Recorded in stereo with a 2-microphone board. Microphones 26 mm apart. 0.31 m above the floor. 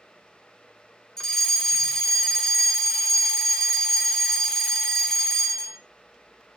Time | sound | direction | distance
1.2 | a fire alarm | 15° left (ahead or behind) | 2 m